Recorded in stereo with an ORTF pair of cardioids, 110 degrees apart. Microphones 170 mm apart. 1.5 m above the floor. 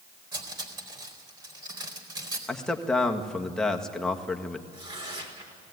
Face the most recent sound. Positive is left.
turn(degrees=-30)